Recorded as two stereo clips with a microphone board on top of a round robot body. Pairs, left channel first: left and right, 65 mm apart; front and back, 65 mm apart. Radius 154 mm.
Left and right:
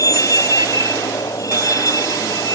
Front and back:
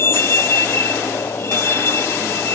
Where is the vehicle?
55° left.